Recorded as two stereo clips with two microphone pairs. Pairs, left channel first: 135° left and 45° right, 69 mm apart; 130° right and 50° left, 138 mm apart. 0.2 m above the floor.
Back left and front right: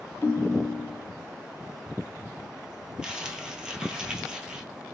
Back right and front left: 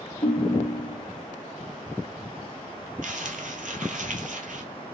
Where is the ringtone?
160° right, 1.3 m.